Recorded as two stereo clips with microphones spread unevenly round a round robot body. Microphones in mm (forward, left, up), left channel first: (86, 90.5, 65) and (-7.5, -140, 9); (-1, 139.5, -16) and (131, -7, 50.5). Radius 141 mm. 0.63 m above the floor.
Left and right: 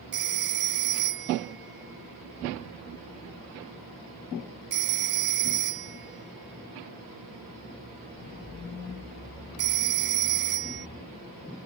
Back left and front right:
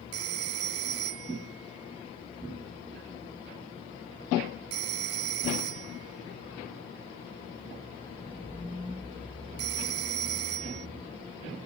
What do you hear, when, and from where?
0.1 s a phone ringing: 65° right